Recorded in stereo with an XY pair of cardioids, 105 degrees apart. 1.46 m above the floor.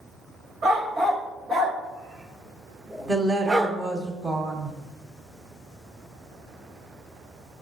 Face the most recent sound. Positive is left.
turn(degrees=-35)